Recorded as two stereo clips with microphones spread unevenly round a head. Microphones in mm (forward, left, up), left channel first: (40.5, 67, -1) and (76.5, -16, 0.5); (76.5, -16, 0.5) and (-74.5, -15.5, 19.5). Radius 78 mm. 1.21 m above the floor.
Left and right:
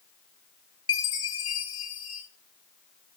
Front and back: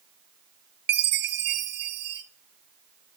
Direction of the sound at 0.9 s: 175° left.